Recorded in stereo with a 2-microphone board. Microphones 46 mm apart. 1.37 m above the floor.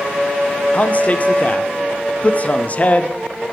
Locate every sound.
0.7 s a man speaking: 35° left (ahead or behind), 0.6 m